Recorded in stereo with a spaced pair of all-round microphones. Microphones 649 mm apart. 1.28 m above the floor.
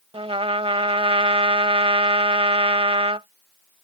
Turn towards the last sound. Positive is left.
turn(degrees=-10)  # may be behind; listen again after turning